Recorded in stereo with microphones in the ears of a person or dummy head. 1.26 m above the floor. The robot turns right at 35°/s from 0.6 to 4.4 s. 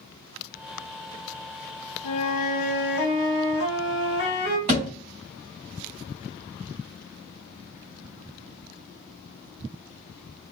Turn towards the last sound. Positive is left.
turn(degrees=-35)  # may be behind; listen again after turning